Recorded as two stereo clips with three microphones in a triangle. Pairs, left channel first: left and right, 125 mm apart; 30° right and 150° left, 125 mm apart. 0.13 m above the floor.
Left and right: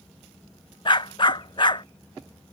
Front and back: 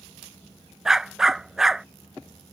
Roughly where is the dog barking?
Ahead left.